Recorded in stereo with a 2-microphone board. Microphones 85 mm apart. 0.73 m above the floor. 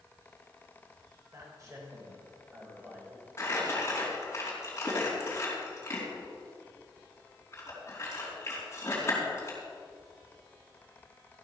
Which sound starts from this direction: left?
Crumpling, at 3.4 s.